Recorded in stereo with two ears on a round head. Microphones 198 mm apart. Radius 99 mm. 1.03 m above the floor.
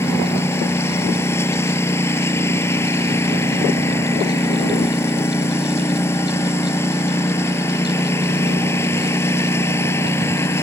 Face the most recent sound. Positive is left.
turn(degrees=10)  # may be behind; listen again after turning